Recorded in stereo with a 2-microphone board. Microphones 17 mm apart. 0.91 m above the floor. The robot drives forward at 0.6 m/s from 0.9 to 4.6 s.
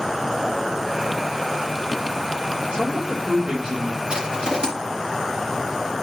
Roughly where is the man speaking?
Right.